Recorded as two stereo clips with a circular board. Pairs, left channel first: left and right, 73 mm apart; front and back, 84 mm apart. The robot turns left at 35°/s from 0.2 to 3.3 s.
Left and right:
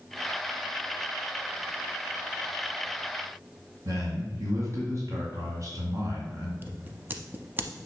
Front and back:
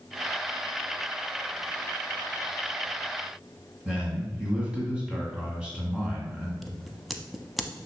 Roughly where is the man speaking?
Right.